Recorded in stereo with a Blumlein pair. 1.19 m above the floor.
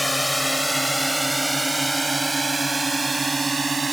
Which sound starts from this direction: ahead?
A drone, at 0.0 s.